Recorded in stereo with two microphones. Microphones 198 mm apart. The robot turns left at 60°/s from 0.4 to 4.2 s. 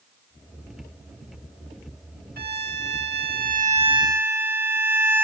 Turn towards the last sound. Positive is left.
turn(degrees=-170)